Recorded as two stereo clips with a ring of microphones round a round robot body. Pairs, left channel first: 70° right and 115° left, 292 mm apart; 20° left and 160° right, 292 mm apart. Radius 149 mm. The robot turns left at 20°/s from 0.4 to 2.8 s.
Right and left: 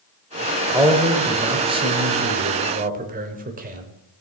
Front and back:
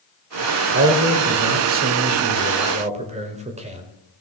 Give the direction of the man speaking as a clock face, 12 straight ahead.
6 o'clock.